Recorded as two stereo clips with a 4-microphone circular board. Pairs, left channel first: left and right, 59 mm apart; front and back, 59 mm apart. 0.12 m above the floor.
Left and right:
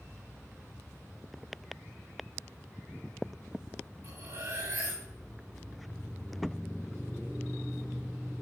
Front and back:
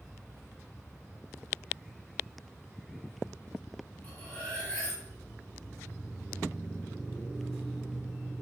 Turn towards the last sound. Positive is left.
turn(degrees=-80)